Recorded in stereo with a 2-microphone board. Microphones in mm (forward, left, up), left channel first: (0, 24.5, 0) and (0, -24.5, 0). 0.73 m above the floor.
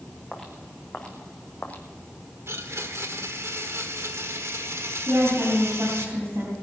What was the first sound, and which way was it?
Footsteps, 5° left (ahead or behind).